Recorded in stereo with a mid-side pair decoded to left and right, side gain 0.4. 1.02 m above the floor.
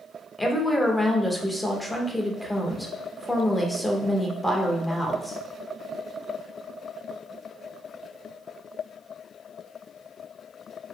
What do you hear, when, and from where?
0.4 s a woman speaking: 10° left, 0.9 m